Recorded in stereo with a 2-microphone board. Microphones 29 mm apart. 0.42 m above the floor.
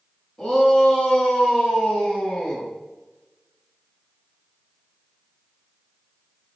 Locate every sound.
0.4 s a shout: 20° left (ahead or behind), 4.5 m; by 2.7 s 40° left (ahead or behind), 6.5 m